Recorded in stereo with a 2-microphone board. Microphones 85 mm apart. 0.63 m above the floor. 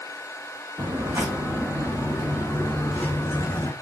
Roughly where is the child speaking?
I don't hear a child speaking.